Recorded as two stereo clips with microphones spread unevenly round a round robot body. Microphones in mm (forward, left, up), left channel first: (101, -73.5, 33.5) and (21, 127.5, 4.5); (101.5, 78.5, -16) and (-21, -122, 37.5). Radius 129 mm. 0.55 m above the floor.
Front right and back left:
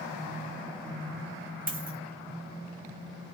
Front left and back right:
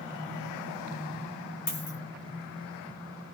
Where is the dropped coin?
60° left, 1.3 m.